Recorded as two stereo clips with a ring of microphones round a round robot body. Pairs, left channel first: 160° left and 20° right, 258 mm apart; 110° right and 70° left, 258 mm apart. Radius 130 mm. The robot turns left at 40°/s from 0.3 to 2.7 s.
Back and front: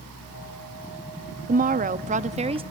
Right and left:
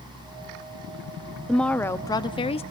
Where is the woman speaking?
25° right, 0.6 m; by 2.6 s 70° right, 0.6 m.